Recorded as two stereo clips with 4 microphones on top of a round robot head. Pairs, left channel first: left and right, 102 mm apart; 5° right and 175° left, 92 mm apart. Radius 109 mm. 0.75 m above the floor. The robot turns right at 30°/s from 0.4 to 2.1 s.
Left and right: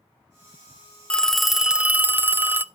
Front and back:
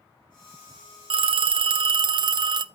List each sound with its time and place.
1.1 s a phone ringing: 170° left, 0.6 m; by 2.6 s 160° right, 0.6 m